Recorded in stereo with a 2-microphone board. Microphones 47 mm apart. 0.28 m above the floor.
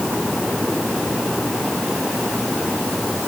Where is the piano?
I don't hear a piano.